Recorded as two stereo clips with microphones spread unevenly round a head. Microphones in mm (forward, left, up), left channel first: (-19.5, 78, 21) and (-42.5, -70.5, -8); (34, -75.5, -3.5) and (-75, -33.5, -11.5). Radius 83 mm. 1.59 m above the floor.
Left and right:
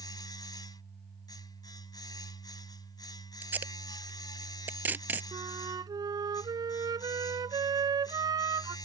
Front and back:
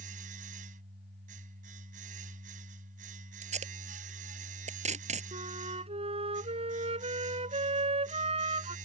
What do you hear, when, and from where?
0.0 s a machine running: 140° left
3.4 s tape being pulled: straight behind
5.3 s a flute: 165° right